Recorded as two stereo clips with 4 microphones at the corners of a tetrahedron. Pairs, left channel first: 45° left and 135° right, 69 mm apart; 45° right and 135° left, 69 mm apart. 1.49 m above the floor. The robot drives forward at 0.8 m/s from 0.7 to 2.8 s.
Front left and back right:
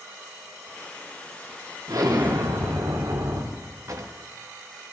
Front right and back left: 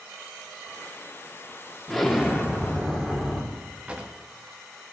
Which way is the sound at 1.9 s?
130° right.